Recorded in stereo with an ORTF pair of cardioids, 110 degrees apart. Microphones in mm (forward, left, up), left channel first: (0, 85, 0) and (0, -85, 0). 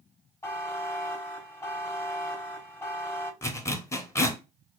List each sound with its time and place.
0.4 s a buzzer: 15° left, 0.8 m
3.4 s a zipper: 15° left, 0.7 m